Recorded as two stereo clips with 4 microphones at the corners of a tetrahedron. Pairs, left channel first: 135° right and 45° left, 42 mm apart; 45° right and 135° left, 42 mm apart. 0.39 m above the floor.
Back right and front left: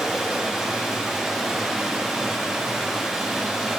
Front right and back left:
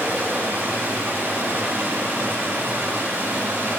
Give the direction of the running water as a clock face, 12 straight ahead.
8 o'clock.